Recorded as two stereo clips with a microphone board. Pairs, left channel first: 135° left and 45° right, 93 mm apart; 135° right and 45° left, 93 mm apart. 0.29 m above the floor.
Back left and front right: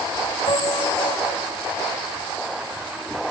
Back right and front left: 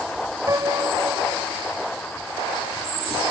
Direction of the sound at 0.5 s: 100° left.